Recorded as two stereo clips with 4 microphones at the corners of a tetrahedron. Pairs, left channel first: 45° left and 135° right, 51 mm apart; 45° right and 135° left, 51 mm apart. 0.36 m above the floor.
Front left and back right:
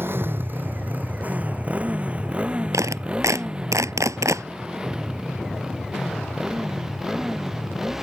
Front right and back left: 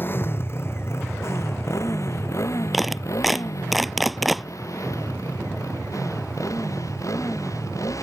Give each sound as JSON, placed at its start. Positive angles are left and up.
{"t": 0.0, "sound": "a motorcycle", "azimuth_deg": -95}
{"t": 2.7, "sound": "a clap", "azimuth_deg": -135}